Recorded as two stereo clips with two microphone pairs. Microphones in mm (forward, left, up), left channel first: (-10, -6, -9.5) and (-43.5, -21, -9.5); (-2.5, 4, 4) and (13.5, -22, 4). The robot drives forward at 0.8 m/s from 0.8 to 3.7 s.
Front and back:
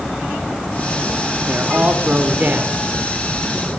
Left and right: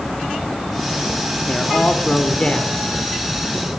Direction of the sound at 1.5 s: 170° left.